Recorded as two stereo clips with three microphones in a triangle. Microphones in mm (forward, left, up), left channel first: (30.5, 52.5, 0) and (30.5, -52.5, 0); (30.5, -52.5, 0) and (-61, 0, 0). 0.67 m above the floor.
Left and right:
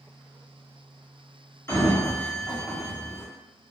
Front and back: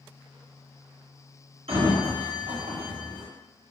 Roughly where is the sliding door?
Behind left.